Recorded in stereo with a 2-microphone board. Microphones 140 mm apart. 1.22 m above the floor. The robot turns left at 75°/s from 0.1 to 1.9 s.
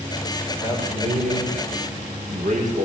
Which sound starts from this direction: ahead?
A man speaking, at 0.6 s.